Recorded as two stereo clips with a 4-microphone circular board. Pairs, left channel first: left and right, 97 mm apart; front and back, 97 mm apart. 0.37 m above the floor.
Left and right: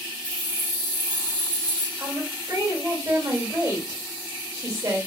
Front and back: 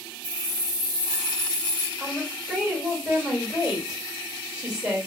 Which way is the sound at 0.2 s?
145° right.